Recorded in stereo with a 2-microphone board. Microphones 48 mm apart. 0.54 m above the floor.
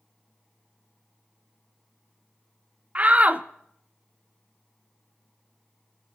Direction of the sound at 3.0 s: 30° right (ahead or behind).